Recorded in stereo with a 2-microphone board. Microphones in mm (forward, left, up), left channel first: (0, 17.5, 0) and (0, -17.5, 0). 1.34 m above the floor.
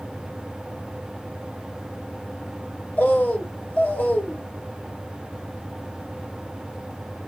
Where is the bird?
50° left (ahead or behind), 0.8 m.